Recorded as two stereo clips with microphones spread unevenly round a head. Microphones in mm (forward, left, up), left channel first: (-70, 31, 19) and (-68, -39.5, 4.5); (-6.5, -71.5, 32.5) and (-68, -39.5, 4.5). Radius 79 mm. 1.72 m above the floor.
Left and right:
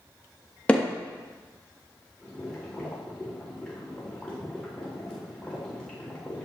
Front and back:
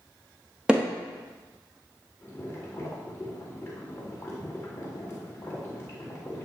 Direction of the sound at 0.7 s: 45° left.